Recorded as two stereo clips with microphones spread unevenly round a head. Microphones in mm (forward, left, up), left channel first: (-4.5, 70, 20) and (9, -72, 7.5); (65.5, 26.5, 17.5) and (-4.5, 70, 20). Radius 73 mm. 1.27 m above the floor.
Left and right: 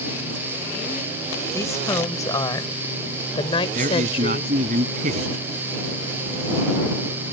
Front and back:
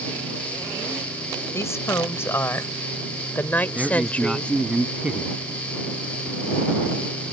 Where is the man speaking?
125° right.